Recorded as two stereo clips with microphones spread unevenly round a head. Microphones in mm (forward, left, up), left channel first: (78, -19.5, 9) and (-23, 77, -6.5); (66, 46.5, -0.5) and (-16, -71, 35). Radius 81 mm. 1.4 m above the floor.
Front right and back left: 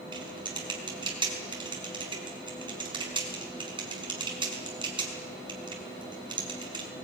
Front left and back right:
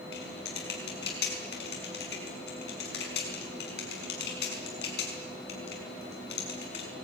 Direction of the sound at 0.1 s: 80° left.